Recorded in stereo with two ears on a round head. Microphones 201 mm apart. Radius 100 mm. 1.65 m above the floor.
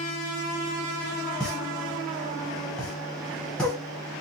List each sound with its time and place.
1.4 s a pop: 5° left (ahead or behind), 1.4 m